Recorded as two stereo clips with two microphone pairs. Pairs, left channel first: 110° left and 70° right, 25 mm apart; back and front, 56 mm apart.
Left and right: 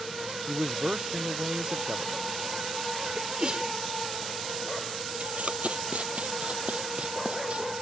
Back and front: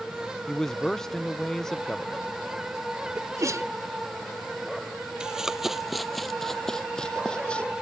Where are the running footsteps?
75° right; by 7.7 s 115° right.